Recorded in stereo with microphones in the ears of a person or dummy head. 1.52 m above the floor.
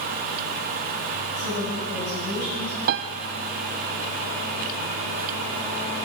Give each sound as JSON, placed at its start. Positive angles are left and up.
{"t": 1.4, "sound": "a woman speaking", "side_deg": 50, "distance_m": 9.5}
{"t": 2.9, "sound": "a piano", "side_deg": -55, "distance_m": 0.7}